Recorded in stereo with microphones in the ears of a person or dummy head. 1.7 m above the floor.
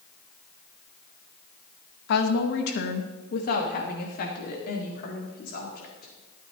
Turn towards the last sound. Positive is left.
turn(degrees=50)  # may be behind; listen again after turning